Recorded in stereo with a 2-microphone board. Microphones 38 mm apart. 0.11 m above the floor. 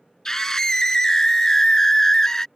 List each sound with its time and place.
0.2 s a scream: 15° left (ahead or behind)